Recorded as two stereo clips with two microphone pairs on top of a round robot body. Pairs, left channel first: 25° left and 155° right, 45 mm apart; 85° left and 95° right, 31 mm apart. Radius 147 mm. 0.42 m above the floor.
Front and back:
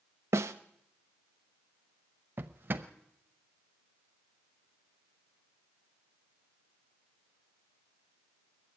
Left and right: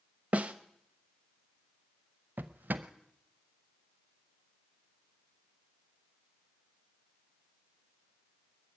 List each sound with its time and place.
0.3 s a snare drum: 140° right, 0.6 m
2.4 s a drawer: 110° right, 0.7 m